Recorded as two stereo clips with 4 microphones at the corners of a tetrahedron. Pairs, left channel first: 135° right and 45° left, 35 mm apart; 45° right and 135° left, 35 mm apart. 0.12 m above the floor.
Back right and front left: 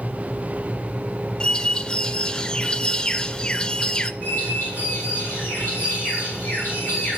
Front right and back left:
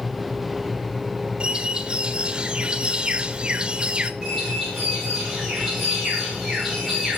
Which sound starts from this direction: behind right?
A bird, at 4.2 s.